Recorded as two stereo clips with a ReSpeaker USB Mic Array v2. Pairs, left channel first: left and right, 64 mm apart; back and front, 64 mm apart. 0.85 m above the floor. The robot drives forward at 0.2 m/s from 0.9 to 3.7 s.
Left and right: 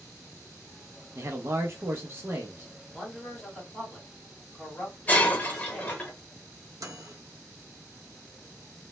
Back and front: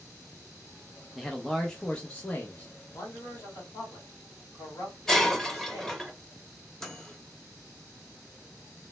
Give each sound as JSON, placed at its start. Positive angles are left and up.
{"t": 1.1, "sound": "a man speaking", "azimuth_deg": -90, "distance_m": 0.5}
{"t": 2.9, "sound": "a man speaking", "azimuth_deg": 170, "distance_m": 1.5}
{"t": 5.1, "sound": "breaking glass", "azimuth_deg": 105, "distance_m": 0.6}
{"t": 6.8, "sound": "a microwave", "azimuth_deg": -100, "distance_m": 0.5}